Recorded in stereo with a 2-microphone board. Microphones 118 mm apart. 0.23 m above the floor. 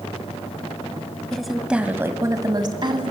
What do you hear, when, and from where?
1.3 s a woman speaking: 5° left (ahead or behind), 1.5 m; by 3.1 s 50° right (ahead or behind), 1.9 m